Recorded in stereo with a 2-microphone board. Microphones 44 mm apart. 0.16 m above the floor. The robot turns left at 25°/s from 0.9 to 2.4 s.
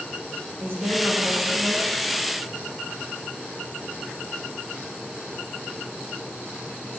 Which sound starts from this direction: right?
A woman speaking, at 0.6 s.